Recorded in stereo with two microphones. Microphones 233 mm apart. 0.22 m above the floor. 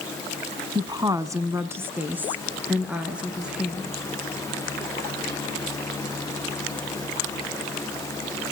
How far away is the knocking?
No knocking in this recording.